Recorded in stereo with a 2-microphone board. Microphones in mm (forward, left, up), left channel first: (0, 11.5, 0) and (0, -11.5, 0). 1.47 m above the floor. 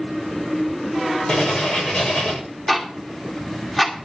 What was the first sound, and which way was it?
Writing, 40° left (ahead or behind).